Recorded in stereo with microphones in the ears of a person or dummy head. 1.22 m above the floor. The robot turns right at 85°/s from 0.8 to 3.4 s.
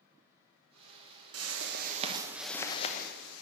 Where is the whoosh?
95° right, 1.0 m; by 3.4 s 80° left, 1.0 m.